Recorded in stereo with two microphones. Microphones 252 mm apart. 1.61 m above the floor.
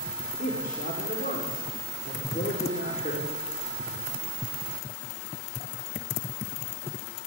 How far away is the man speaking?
About 4.5 m.